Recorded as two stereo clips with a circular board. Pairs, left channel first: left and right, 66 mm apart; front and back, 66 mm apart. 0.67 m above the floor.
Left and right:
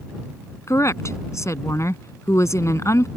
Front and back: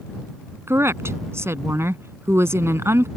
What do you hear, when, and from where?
0.7 s a woman speaking: 130° left